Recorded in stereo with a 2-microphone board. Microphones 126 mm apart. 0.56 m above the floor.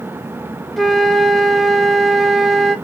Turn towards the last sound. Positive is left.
turn(degrees=0)  # may be behind; listen again after turning